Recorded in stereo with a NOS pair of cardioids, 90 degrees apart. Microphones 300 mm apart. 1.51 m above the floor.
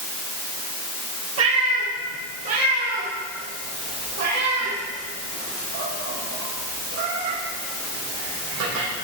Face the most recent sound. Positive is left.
turn(degrees=-75)